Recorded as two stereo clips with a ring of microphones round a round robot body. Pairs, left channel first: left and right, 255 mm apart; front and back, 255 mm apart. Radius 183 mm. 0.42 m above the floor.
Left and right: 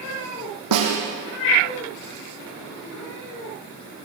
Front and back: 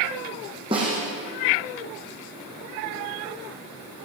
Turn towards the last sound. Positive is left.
turn(degrees=-100)